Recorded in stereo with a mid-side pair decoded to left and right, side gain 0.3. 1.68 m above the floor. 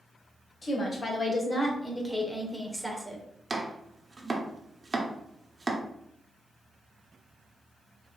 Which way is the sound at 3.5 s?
35° right.